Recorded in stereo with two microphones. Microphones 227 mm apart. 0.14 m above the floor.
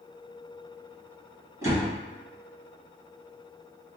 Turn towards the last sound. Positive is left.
turn(degrees=-15)  # may be behind; listen again after turning